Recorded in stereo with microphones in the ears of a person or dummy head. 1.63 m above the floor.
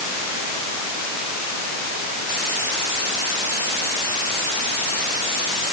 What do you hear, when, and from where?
Only background noise.